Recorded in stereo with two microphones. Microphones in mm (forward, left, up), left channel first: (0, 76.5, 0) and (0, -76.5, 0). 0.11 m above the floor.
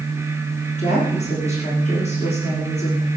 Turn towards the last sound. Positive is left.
turn(degrees=45)  # may be behind; listen again after turning